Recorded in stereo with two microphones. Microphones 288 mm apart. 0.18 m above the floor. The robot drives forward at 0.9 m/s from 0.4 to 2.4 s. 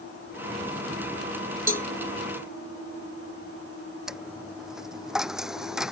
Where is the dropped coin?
Centre (ahead or behind).